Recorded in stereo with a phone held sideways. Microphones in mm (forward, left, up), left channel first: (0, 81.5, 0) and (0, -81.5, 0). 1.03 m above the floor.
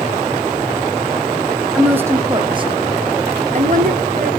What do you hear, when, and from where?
1.8 s a woman speaking: 5° right (ahead or behind), 0.9 m; by 4.3 s 60° right (ahead or behind), 1.6 m